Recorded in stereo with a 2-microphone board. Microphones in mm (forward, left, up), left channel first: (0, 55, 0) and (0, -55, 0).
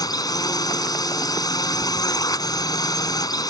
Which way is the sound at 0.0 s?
35° left (ahead or behind).